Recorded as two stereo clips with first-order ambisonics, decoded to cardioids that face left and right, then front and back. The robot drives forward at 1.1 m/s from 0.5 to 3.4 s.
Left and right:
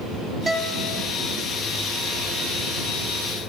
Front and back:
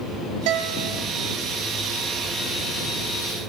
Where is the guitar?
170° right, 1.4 m.